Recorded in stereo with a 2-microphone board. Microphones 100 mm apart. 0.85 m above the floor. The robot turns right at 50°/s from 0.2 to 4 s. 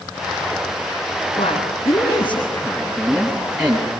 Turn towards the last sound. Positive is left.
turn(degrees=-150)